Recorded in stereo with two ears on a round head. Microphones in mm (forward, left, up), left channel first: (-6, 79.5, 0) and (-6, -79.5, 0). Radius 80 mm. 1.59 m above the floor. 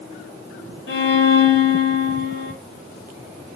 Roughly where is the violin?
Left.